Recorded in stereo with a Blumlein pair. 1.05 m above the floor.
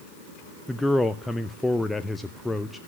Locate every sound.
0.7 s a man speaking: 5° left, 0.7 m